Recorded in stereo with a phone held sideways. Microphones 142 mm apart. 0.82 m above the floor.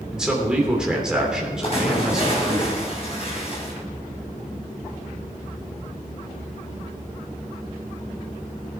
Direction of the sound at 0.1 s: 5° right (ahead or behind).